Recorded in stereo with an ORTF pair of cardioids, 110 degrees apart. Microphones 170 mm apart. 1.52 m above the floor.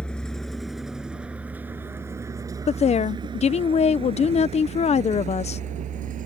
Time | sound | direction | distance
0.0 | a vehicle | 5° left | ?
2.7 | a woman speaking | 40° left | ?